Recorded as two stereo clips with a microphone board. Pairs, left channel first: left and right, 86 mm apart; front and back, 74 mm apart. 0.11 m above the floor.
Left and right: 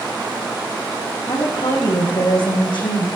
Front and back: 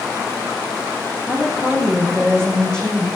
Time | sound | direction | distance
1.3 | a woman speaking | 75° left | 4 m